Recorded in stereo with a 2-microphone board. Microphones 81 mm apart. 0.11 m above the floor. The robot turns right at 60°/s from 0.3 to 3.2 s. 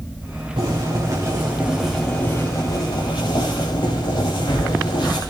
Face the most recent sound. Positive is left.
turn(degrees=80)